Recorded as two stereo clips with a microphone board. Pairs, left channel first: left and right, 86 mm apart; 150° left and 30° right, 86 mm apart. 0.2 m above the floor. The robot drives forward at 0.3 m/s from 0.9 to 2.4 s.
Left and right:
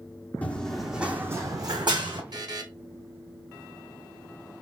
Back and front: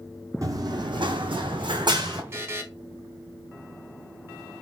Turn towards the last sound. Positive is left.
turn(degrees=-85)